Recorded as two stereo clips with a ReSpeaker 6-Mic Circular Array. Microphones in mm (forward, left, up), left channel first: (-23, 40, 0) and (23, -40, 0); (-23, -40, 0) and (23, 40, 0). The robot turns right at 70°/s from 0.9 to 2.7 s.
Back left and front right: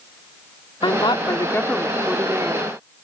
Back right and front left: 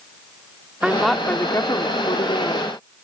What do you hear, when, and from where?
0.8 s a woman speaking: 140° left; by 2.7 s 95° right